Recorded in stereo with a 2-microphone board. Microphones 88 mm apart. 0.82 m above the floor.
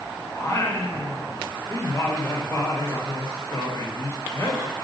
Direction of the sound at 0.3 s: 30° left (ahead or behind).